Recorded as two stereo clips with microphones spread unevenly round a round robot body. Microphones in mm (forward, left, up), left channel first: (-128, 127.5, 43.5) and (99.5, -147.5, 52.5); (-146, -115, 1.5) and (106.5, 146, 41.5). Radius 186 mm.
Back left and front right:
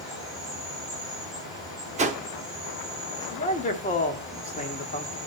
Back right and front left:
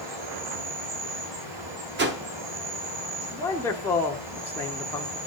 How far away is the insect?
About 6 m.